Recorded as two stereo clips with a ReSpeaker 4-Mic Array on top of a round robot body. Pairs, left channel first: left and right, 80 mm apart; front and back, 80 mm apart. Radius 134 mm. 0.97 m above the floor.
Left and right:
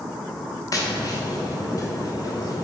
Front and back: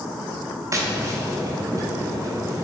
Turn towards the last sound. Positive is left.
turn(degrees=130)